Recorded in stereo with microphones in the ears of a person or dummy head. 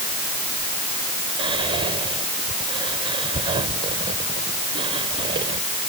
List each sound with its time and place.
1.4 s whispering: 30° right (ahead or behind)